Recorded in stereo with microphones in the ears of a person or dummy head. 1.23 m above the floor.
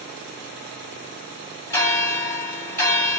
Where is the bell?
15° left (ahead or behind), 1.4 m.